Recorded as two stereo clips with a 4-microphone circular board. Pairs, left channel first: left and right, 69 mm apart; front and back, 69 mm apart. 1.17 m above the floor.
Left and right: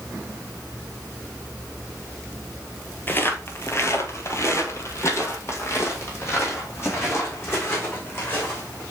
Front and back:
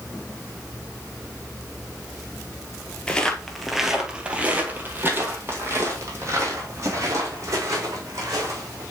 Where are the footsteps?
65° left, 1.3 m; by 8.8 s 145° left, 4.5 m.